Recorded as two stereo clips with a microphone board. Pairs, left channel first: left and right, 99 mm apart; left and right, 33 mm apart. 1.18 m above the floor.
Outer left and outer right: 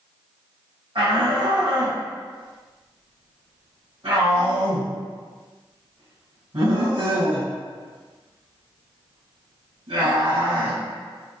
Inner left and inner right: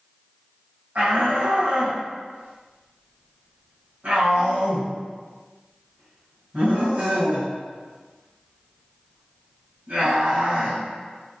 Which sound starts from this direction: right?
A shout, at 0.9 s.